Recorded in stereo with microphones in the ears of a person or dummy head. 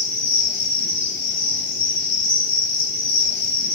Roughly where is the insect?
Right.